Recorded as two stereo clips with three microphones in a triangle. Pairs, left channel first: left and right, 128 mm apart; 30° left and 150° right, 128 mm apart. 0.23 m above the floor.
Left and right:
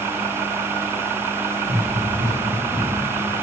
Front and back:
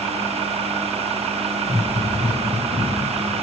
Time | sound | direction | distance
1.6 | running footsteps | 110° right | 5 m